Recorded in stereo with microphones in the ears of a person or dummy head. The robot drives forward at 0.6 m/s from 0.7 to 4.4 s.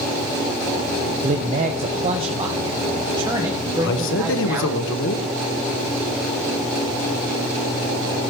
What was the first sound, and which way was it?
A man speaking, 45° right (ahead or behind).